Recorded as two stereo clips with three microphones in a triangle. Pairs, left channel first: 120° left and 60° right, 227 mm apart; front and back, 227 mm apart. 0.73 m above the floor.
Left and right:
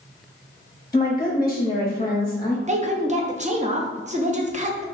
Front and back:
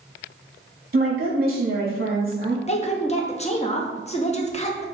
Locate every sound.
0.9 s a woman speaking: 170° right, 0.7 m
2.7 s a woman speaking: 35° right, 0.5 m